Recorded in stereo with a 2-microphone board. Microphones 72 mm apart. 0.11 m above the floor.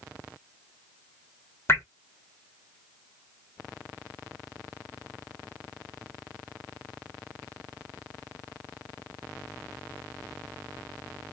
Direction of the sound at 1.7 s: 35° left (ahead or behind).